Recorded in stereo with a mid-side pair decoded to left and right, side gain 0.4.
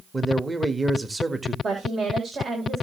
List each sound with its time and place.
0.1 s a man speaking: 20° right, 1.6 m
1.6 s a woman speaking: 55° right, 4.5 m